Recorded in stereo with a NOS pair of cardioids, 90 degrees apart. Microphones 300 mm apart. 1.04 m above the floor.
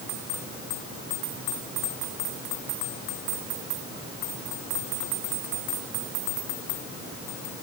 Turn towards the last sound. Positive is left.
No sound to turn to.